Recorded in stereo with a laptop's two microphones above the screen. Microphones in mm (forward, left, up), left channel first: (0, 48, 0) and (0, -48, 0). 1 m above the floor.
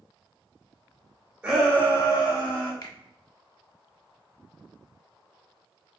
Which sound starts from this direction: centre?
A shout, at 1.4 s.